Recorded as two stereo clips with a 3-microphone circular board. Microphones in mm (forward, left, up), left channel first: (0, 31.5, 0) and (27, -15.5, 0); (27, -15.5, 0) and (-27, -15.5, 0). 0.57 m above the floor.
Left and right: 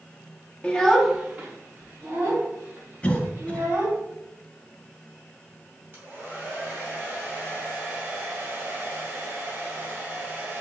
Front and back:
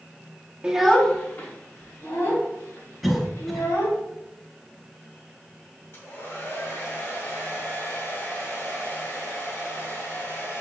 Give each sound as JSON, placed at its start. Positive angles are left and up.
{"t": 0.6, "sound": "a child speaking", "azimuth_deg": 140, "distance_m": 0.6}
{"t": 3.0, "sound": "a cough", "azimuth_deg": 85, "distance_m": 0.7}
{"t": 5.9, "sound": "a hair dryer", "azimuth_deg": -15, "distance_m": 1.9}